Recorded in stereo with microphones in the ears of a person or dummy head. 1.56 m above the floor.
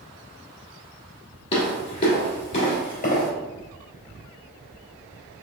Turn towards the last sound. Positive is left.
turn(degrees=40)  # may be behind; listen again after turning